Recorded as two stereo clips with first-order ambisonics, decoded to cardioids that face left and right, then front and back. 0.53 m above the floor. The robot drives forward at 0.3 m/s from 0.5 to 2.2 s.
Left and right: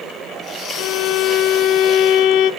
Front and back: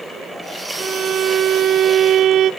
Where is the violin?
110° left, 1.1 m; by 2.5 s 130° left, 1.3 m.